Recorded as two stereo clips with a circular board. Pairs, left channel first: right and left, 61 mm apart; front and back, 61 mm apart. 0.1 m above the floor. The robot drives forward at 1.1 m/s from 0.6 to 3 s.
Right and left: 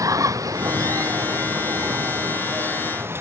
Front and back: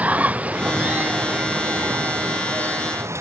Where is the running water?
115° left; by 3.2 s 140° left.